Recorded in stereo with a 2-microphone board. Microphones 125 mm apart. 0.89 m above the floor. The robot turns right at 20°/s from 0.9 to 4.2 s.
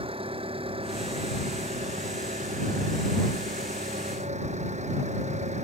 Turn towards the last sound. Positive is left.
turn(degrees=-65)